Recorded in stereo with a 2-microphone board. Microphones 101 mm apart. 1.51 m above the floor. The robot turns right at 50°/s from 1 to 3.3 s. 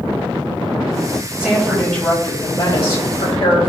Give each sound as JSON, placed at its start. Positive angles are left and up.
{"t": 1.4, "sound": "a woman speaking", "azimuth_deg": -10, "distance_m": 4.0}